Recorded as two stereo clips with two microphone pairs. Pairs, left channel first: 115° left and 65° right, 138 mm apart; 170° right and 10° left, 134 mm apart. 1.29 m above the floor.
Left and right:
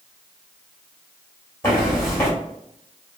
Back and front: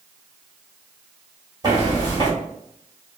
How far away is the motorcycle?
I don't hear a motorcycle.